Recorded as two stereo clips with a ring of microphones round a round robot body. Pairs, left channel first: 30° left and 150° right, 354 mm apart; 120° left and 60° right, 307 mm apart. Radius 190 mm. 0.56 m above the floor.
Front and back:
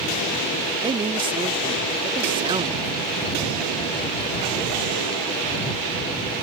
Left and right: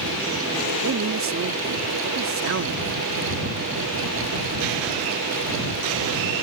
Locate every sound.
0.8 s a man speaking: 80° right